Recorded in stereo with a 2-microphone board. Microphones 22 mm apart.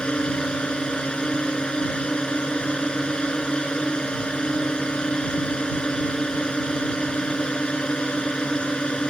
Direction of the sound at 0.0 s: 50° left (ahead or behind).